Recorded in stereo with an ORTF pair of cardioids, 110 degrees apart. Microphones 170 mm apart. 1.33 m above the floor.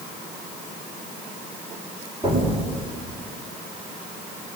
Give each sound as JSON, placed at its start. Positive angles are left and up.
{"t": 2.2, "sound": "an explosion", "azimuth_deg": -30, "distance_m": 5.5}